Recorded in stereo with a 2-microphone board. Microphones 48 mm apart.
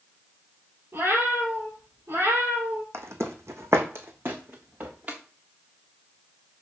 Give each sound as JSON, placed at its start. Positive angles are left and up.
{"t": 0.9, "sound": "a cat meowing", "side_deg": -55, "distance_m": 2.5}
{"t": 2.9, "sound": "footsteps", "side_deg": -65, "distance_m": 1.2}